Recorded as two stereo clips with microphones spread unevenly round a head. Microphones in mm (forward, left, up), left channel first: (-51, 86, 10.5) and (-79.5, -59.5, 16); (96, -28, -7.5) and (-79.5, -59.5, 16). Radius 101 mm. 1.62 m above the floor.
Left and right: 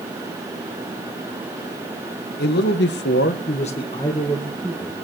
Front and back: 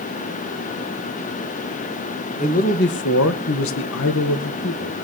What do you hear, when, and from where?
2.4 s a man speaking: 70° left, 1.7 m; by 4.9 s 20° right, 2 m